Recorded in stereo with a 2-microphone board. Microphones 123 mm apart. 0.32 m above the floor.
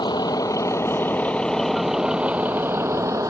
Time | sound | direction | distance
0.0 | a vehicle | 40° left (ahead or behind) | ?